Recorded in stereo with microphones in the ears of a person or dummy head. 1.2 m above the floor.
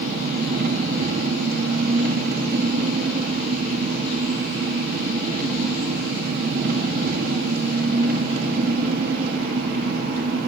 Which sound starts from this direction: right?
An engine running, at 0.0 s.